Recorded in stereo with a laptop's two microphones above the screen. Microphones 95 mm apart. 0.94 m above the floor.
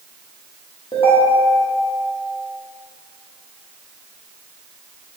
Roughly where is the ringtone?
Left.